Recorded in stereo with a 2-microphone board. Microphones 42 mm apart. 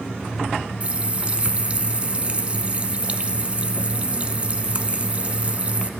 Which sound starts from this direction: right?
A running tap, at 0.8 s.